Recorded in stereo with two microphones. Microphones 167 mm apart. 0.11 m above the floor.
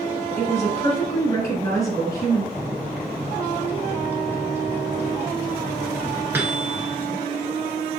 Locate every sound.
0.4 s a woman speaking: 20° left (ahead or behind), 1.7 m
2.5 s a microwave: 10° right (ahead or behind), 1.0 m